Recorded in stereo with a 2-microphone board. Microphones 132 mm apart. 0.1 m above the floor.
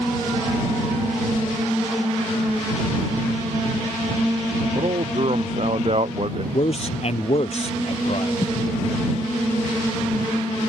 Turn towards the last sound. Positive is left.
turn(degrees=35)  # may be behind; listen again after turning